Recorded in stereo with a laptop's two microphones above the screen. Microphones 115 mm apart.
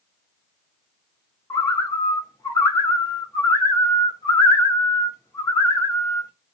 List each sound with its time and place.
1.5 s a bird: 30° left (ahead or behind), 1.6 m